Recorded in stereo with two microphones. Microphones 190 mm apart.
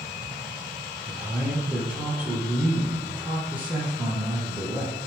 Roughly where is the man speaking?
Centre.